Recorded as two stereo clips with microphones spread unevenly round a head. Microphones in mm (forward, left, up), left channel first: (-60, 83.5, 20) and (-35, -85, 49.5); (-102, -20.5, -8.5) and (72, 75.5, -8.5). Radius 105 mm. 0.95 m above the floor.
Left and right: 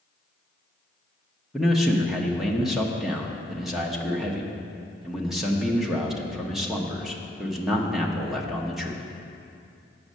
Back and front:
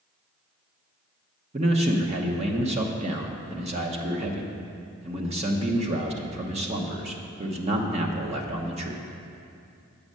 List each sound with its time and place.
1.5 s a man speaking: 20° left, 1.0 m